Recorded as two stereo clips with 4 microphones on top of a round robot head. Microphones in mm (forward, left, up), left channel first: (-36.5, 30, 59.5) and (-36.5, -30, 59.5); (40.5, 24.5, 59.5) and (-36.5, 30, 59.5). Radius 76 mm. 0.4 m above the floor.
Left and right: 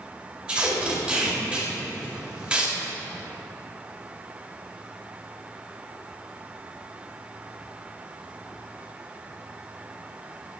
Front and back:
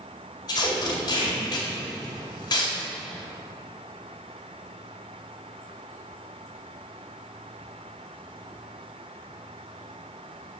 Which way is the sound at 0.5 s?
20° right.